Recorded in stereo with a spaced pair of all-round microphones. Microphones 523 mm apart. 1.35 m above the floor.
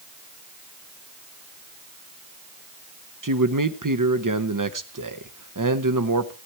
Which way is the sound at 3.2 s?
35° right (ahead or behind).